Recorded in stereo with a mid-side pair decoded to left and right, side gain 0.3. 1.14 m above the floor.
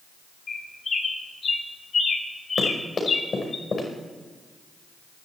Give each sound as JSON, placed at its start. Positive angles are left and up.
{"t": 0.5, "sound": "a bird", "azimuth_deg": 55, "distance_m": 2.0}
{"t": 2.6, "sound": "running footsteps", "azimuth_deg": 50, "distance_m": 5.5}